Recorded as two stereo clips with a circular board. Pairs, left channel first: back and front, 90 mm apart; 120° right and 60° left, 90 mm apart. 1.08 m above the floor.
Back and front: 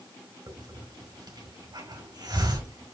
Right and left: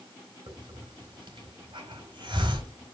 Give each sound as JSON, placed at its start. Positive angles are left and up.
{"t": 0.5, "sound": "a hiss", "azimuth_deg": 35, "distance_m": 3.5}